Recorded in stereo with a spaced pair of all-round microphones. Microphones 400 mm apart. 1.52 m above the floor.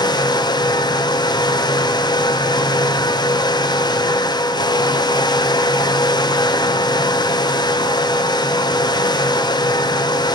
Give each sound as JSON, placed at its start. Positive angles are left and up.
{"t": 0.0, "sound": "a fan", "side_deg": 10, "distance_m": 0.8}